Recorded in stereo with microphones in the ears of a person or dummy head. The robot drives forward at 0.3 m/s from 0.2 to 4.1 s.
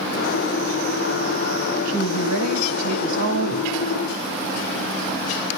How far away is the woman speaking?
About 2 m.